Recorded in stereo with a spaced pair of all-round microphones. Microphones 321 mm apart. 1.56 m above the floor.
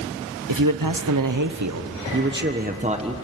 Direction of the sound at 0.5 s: 75° right (ahead or behind).